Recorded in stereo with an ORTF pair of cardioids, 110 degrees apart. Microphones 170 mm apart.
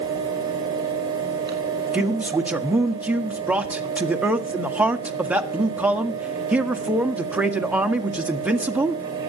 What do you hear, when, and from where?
0.0 s a fan: 25° right, 5 m
1.9 s a man speaking: 10° right, 1.5 m